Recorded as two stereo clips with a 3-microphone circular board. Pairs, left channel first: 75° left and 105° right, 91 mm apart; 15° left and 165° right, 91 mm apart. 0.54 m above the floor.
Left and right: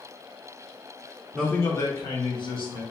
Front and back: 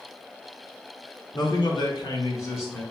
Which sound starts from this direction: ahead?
A man speaking, at 1.3 s.